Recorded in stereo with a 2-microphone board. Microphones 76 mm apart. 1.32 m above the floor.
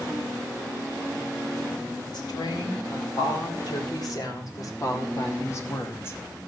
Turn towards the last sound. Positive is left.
turn(degrees=30)  # may be behind; listen again after turning